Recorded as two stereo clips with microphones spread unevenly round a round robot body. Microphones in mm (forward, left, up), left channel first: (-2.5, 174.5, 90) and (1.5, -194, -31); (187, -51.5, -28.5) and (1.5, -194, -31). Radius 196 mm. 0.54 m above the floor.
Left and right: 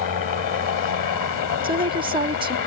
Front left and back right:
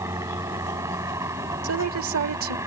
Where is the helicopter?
135° left.